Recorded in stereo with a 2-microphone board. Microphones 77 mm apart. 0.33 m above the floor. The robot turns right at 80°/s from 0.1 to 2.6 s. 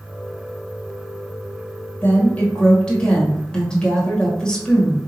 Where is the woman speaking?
25° left (ahead or behind), 1.4 m; by 5.0 s 10° left (ahead or behind), 1.4 m.